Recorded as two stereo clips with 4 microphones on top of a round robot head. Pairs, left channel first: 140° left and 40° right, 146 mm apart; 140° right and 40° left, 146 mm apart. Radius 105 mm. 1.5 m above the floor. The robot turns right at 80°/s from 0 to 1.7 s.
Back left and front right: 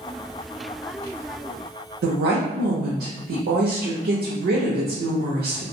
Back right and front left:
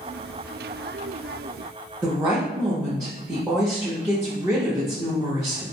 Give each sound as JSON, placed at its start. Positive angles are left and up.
{"t": 2.0, "sound": "a woman speaking", "azimuth_deg": -35, "distance_m": 0.5}